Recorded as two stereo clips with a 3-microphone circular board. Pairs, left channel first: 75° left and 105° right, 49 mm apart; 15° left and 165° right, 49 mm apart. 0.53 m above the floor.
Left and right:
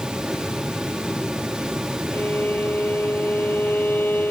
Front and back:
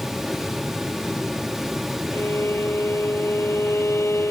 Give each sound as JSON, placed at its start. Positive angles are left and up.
{"t": 2.1, "sound": "a violin", "azimuth_deg": 30}